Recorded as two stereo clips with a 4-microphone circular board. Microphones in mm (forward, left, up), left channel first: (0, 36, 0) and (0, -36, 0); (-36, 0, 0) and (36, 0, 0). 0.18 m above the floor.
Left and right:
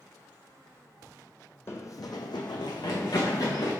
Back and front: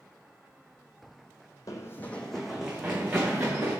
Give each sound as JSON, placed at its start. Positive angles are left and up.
{"t": 1.7, "sound": "running footsteps", "azimuth_deg": 145, "distance_m": 0.5}